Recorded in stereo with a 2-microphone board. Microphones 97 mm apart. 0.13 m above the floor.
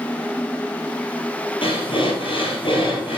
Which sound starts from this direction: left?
Breathing, at 1.6 s.